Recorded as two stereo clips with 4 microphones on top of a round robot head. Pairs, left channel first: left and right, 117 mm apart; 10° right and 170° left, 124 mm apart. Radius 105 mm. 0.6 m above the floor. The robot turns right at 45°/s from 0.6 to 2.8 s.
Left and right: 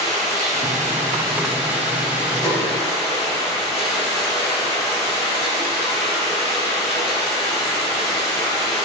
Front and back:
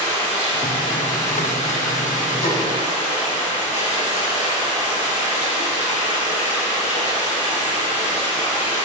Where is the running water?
80° right, 5 m; by 8.9 s 20° left, 5 m.